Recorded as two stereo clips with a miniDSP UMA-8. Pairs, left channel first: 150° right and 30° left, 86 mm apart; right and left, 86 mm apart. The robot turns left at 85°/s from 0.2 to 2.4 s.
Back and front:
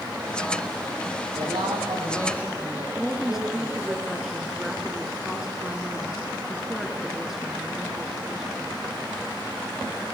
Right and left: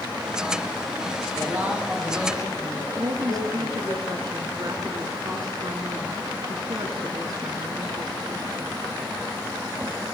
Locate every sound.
1.4 s a man speaking: 50° left, 7 m; by 4.0 s 40° right, 7 m
3.0 s a woman speaking: 115° left, 2.5 m